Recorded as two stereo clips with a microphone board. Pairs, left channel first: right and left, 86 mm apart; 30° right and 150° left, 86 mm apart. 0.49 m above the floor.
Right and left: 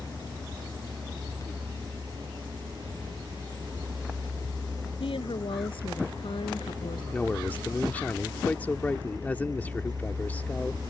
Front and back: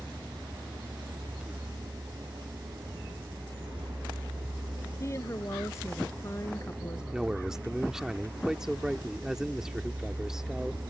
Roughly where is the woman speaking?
Right.